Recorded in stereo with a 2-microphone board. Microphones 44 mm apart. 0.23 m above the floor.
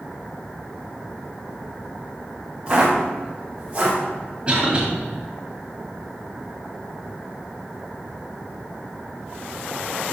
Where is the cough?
25° right (ahead or behind), 1.3 m.